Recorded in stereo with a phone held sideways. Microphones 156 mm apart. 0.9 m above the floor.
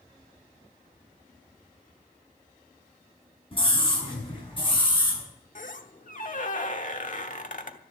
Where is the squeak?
55° left (ahead or behind), 1.1 m.